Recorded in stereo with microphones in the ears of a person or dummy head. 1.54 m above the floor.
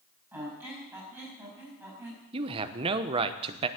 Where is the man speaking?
30° right (ahead or behind), 0.9 m.